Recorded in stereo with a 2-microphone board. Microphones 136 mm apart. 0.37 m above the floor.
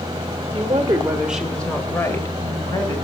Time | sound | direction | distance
0.5 | a woman speaking | 35° right (ahead or behind) | 1.1 m